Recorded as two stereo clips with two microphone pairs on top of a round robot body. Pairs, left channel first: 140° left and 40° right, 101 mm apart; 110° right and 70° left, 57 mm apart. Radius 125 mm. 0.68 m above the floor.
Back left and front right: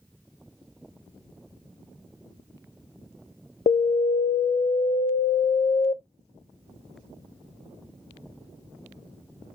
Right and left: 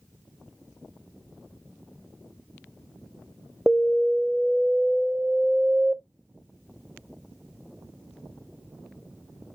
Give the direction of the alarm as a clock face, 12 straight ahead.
7 o'clock.